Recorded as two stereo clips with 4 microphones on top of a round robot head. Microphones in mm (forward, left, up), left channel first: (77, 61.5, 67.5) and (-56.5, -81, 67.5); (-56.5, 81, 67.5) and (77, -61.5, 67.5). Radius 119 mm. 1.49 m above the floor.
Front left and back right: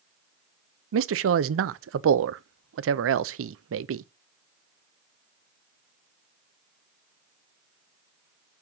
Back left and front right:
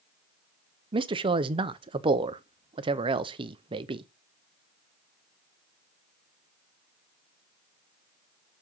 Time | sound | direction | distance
0.9 | a man speaking | 115° right | 0.6 m